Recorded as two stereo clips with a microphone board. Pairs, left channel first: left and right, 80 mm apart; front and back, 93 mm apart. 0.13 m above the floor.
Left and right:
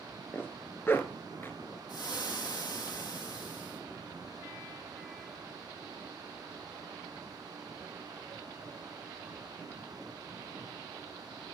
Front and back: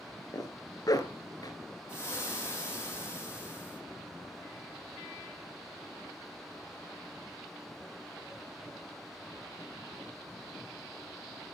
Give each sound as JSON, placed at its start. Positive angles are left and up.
{"t": 0.3, "sound": "a zipper", "azimuth_deg": 35, "distance_m": 1.1}
{"t": 1.9, "sound": "frying", "azimuth_deg": 60, "distance_m": 3.0}